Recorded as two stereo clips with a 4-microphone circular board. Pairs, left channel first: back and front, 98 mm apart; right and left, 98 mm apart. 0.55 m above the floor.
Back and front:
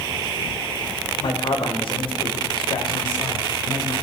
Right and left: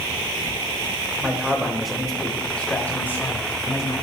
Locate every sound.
1.2 s a man speaking: 165° left, 2.5 m; by 4.0 s 145° right, 3 m